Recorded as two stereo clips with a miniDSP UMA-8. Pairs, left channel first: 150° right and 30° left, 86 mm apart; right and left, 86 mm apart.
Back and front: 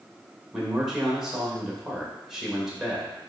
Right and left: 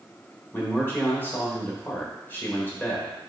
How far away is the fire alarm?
No fire alarm in this recording.